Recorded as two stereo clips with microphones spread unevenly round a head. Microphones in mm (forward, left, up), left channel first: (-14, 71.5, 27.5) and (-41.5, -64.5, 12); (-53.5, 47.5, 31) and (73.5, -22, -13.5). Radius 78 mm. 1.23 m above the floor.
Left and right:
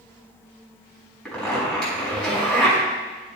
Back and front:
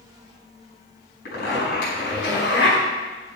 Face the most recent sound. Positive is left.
turn(degrees=160)